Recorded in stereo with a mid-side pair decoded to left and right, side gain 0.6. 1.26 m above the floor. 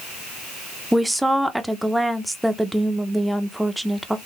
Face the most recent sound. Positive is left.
turn(degrees=-5)